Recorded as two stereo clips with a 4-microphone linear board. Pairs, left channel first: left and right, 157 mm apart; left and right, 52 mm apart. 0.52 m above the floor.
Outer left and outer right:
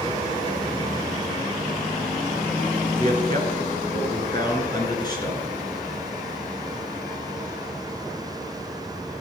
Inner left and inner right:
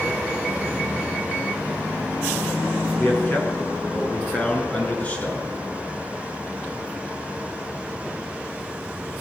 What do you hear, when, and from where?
3.0 s a man speaking: 35° left (ahead or behind), 7 m; by 5.5 s 25° left (ahead or behind), 8.5 m